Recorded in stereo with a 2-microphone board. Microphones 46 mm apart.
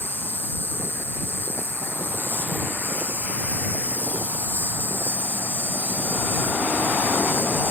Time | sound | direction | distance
0.0 | an insect | 50° left (ahead or behind) | ?